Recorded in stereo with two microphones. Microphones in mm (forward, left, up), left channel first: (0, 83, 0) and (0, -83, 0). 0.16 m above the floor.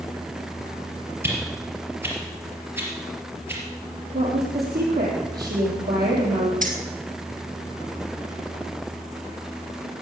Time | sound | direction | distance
1.2 | a whoosh | 15° right (ahead or behind) | 4 m
4.1 | a woman speaking | 75° right (ahead or behind) | 6 m
6.6 | keys jangling | 55° right (ahead or behind) | 2.5 m